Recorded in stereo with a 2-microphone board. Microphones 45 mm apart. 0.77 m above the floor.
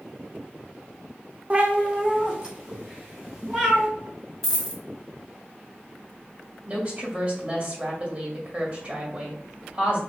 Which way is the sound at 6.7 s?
35° right (ahead or behind).